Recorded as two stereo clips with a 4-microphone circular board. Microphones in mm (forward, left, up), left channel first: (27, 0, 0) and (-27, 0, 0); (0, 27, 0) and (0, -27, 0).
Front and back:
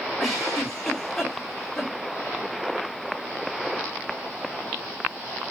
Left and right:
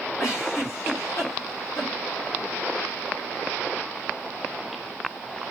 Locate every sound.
0.2 s a giggle: 80° left, 2.0 m